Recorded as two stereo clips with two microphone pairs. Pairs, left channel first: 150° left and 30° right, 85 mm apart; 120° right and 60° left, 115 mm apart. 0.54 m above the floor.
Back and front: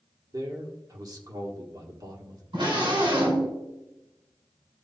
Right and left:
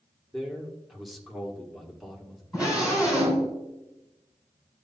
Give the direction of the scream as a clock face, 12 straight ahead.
1 o'clock.